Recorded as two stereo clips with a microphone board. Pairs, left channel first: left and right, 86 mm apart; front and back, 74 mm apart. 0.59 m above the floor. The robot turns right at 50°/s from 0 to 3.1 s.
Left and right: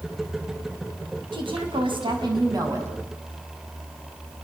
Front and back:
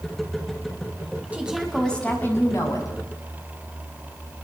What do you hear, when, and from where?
1.3 s a woman speaking: 110° right, 5.5 m; by 2.9 s 30° right, 5.5 m